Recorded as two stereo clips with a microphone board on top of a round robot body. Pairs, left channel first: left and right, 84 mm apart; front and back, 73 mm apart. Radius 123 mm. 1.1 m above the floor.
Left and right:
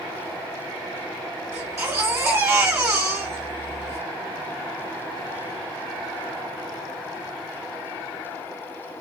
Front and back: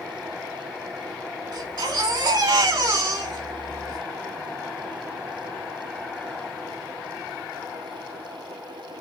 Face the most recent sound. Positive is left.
turn(degrees=-150)